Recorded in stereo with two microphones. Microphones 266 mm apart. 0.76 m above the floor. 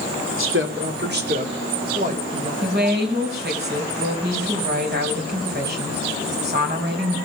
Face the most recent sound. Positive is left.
turn(degrees=-40)  # may be behind; listen again after turning